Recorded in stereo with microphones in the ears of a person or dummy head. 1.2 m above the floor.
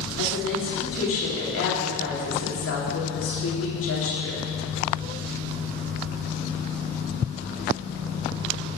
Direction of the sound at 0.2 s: 60° left (ahead or behind).